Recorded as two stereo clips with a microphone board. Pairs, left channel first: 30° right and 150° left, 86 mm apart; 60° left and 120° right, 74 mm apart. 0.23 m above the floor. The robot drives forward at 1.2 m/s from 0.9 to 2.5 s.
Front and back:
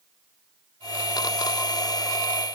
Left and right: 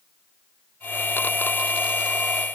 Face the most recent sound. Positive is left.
No sound to turn to.